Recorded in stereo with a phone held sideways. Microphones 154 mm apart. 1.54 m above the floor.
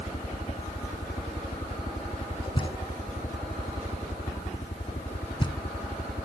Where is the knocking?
30° left (ahead or behind).